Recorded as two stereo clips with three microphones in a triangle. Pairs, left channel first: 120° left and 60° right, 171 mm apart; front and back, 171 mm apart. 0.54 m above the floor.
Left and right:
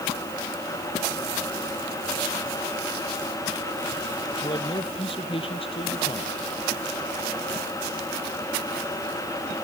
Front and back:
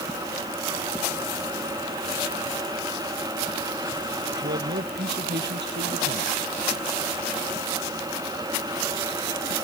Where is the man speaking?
Straight behind.